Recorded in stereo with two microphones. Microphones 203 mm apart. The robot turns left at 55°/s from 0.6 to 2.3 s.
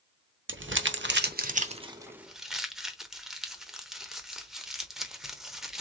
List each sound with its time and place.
0.5 s crumpling: 75° right (ahead or behind), 0.8 m; by 5.8 s centre (ahead or behind), 0.8 m